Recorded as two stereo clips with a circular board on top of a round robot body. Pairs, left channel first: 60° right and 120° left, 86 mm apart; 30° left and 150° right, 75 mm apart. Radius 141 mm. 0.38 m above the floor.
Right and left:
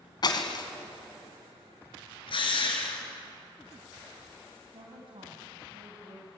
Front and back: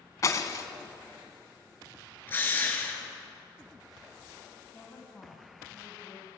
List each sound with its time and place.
0.2 s breaking glass: 20° right, 2 m
2.3 s a drill: 35° right, 4.5 m
4.7 s a woman speaking: 105° left, 3.5 m